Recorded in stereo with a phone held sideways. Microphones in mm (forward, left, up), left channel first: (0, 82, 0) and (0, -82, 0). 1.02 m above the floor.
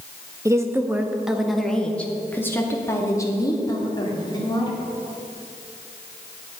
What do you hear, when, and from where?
0.5 s a woman speaking: 20° right (ahead or behind), 1.3 m; by 4.8 s 30° left (ahead or behind), 3 m